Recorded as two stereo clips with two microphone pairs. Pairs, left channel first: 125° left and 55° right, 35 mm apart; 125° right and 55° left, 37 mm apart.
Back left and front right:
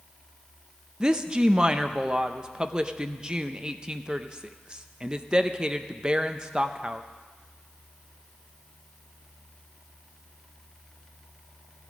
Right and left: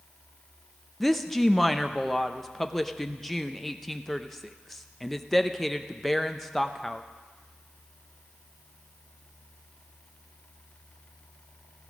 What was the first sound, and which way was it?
A woman speaking, 40° right.